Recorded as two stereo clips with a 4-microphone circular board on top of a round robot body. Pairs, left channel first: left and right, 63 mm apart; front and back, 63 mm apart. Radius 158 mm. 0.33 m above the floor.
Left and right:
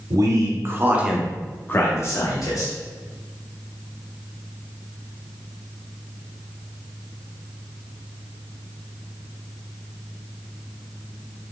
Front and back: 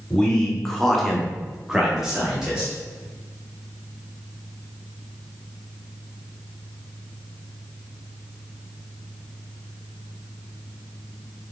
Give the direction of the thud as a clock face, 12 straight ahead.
No thud in this recording.